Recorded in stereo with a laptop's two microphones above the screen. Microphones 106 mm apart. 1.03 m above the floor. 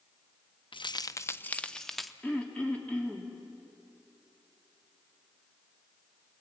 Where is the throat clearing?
15° left (ahead or behind), 3 m.